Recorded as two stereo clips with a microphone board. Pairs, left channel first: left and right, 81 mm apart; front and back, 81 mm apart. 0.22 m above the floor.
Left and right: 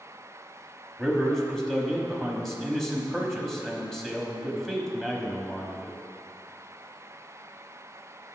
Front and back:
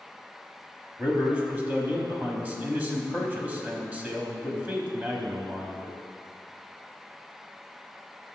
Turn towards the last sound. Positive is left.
turn(degrees=165)